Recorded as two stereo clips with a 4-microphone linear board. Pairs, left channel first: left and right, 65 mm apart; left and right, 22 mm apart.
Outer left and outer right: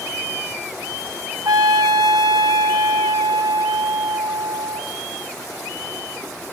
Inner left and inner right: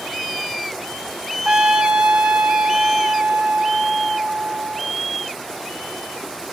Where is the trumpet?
70° right (ahead or behind), 1.7 m.